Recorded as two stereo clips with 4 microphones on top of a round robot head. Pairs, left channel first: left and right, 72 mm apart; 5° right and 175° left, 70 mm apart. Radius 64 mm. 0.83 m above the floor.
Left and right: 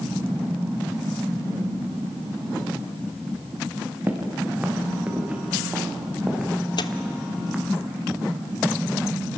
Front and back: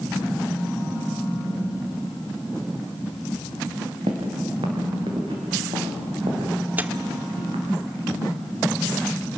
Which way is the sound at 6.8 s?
110° left.